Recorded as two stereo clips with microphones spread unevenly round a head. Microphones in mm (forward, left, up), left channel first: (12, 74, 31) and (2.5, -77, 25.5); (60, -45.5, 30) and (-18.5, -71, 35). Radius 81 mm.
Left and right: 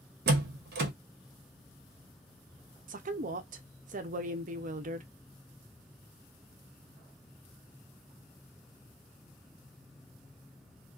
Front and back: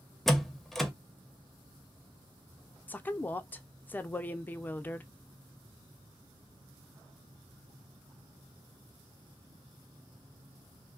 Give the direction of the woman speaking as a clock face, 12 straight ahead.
2 o'clock.